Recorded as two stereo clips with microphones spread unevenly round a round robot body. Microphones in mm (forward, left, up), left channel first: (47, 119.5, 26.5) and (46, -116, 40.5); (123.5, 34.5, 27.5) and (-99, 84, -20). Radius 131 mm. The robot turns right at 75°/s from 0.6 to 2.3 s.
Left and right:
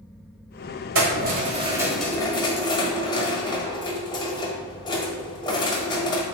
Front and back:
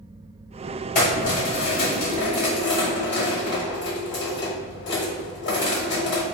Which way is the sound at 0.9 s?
75° right.